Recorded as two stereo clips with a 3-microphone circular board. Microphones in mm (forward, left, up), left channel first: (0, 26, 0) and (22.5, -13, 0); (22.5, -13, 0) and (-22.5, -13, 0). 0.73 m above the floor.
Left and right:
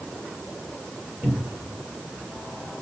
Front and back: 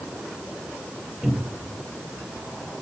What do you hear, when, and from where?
1.2 s a cupboard door: 105° right, 2 m